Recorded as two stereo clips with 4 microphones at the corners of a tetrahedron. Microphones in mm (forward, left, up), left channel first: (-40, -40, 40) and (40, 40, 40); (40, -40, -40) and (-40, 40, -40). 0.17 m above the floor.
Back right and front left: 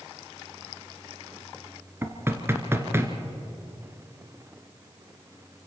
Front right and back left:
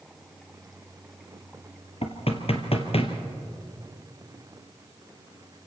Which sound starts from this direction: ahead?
Knocking, at 2.0 s.